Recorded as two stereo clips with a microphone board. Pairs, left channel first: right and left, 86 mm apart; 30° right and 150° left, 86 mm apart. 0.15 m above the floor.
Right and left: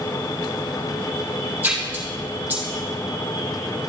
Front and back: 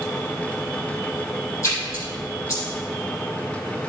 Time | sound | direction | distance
1.6 | a splash | 25° left | 4 m